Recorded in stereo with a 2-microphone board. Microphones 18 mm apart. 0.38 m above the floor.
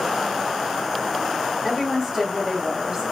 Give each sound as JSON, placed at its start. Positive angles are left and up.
{"t": 1.6, "sound": "a woman speaking", "side_deg": -5, "distance_m": 1.2}